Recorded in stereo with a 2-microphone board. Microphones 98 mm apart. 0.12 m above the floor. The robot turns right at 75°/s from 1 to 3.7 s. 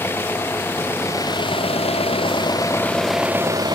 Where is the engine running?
25° left; by 3.8 s 135° right.